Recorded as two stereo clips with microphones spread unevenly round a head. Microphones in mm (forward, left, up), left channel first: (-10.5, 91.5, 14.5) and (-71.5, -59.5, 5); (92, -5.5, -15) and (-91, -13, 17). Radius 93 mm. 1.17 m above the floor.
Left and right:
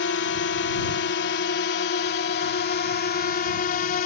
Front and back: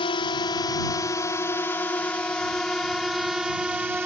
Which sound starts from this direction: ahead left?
A drone, at 0.0 s.